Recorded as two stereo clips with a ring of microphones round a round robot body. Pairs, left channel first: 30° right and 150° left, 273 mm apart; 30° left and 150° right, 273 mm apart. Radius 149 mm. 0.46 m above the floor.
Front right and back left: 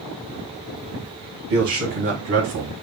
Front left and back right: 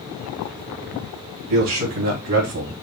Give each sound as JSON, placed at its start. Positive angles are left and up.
{"t": 1.5, "sound": "a man speaking", "azimuth_deg": -170, "distance_m": 3.0}